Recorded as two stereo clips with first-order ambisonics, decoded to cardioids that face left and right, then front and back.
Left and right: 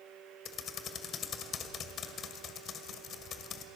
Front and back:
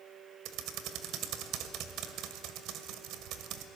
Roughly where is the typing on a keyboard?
Behind left.